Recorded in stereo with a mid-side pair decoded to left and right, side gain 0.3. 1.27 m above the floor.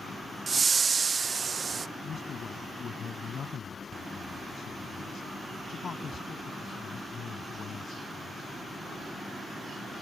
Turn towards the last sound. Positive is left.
turn(degrees=65)